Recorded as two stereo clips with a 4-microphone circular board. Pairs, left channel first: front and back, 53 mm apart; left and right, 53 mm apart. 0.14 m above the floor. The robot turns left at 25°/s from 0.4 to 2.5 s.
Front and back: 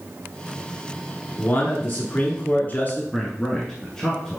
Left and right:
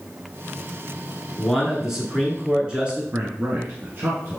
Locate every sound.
1.4 s a man speaking: straight ahead, 1.5 m; by 3.0 s 30° right, 1.5 m
3.1 s a man speaking: 70° right, 1.4 m